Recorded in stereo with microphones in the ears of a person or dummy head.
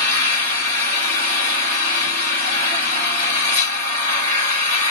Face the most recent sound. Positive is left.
turn(degrees=-40)  # may be behind; listen again after turning